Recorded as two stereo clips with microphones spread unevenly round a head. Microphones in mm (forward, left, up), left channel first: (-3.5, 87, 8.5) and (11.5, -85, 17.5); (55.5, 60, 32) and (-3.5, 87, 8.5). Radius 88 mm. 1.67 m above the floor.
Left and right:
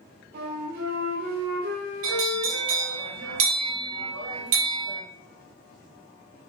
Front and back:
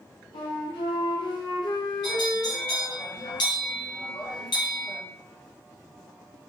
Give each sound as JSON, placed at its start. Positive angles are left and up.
{"t": 0.3, "sound": "a flute", "azimuth_deg": -50, "distance_m": 0.6}
{"t": 2.0, "sound": "a bell", "azimuth_deg": -75, "distance_m": 0.6}